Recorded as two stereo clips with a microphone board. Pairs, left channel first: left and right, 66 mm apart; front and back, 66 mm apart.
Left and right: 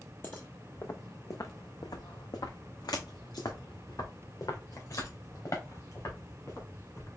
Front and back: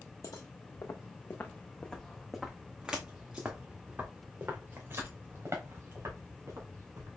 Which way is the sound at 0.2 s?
30° left.